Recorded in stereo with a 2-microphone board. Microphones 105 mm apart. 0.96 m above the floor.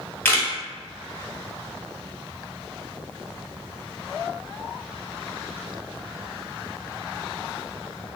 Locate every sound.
0.2 s a camera shutter: 20° left (ahead or behind), 1.0 m